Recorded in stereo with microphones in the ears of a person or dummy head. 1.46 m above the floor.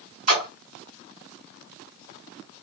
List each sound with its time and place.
0.3 s a splash: 45° right (ahead or behind), 3 m